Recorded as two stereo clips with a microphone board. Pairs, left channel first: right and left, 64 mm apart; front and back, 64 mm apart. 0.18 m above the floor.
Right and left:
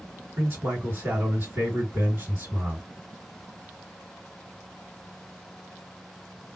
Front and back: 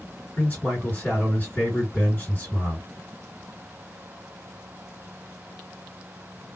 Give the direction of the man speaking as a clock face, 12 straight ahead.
10 o'clock.